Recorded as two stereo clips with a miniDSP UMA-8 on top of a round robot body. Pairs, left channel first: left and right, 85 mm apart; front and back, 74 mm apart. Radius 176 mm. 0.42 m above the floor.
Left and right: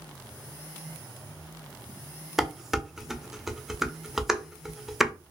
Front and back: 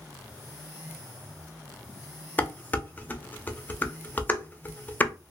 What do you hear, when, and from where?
2.4 s dishes clattering: 10° right, 0.6 m